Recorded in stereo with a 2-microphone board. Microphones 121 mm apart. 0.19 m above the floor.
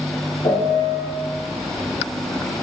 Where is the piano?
65° left (ahead or behind), 3.5 m.